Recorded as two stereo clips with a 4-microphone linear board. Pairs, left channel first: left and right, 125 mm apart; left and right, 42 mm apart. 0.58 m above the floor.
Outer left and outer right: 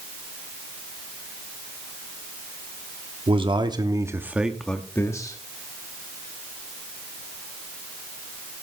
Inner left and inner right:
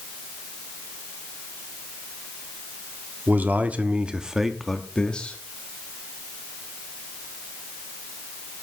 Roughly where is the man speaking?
Right.